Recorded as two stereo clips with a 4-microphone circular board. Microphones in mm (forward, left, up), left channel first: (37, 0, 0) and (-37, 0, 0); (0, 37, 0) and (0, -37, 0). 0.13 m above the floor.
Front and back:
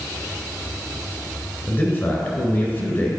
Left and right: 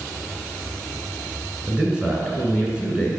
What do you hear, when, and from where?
1.7 s a man speaking: 25° right, 1.6 m